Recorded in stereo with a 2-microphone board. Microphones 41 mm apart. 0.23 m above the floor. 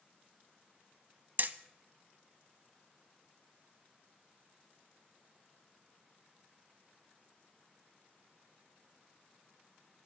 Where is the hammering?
50° right (ahead or behind), 0.7 m.